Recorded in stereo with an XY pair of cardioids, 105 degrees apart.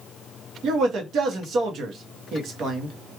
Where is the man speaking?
65° right, 1.0 m.